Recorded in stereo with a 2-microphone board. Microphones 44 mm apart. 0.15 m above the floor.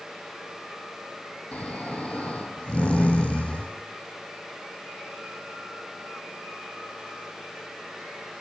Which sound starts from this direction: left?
Snoring, at 1.5 s.